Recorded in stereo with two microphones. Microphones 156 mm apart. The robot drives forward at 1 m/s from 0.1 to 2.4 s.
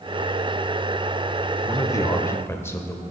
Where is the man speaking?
20° left (ahead or behind), 0.8 m; by 3.0 s 15° left (ahead or behind), 1.1 m.